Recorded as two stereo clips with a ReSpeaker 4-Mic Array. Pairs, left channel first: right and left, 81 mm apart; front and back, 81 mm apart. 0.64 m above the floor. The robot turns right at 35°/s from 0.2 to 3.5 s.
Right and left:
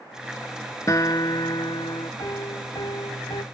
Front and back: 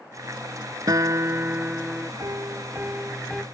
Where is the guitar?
140° right; by 2.1 s 95° right.